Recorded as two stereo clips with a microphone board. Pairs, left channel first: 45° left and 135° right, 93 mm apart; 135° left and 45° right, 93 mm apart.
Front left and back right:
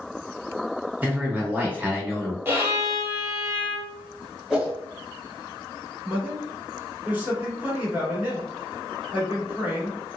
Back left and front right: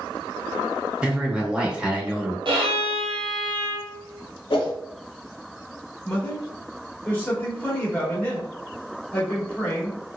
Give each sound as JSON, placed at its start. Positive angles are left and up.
{"t": 1.0, "sound": "a man speaking", "azimuth_deg": -105, "distance_m": 0.8}
{"t": 2.5, "sound": "a violin", "azimuth_deg": -70, "distance_m": 1.2}
{"t": 4.5, "sound": "a whoosh", "azimuth_deg": 140, "distance_m": 0.9}
{"t": 6.0, "sound": "a man speaking", "azimuth_deg": -175, "distance_m": 1.2}